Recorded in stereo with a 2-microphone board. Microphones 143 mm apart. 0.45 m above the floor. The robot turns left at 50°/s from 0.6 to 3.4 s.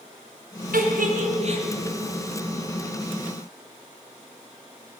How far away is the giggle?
About 3 m.